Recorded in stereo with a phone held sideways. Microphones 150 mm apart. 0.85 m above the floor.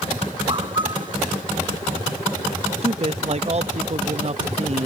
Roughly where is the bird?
Right.